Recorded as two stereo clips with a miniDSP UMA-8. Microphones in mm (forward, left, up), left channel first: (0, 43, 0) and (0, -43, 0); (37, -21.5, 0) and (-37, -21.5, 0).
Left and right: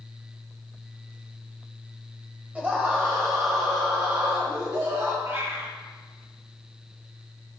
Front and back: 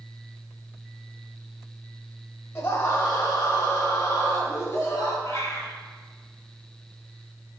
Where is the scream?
25° right, 1.4 m; by 5.1 s 55° right, 4 m.